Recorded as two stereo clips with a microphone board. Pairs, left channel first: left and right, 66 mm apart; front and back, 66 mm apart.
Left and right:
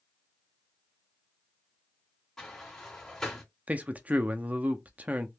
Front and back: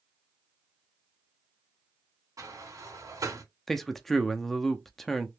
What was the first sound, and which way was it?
A sliding door, 170° left.